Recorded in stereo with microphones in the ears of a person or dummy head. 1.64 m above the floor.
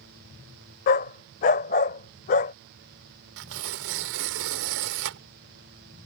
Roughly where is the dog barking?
Left.